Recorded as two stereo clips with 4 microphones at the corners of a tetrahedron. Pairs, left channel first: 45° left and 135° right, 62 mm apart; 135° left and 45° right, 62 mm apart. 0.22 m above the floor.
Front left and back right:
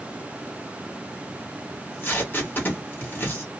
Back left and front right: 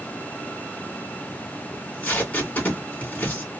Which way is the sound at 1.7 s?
85° left.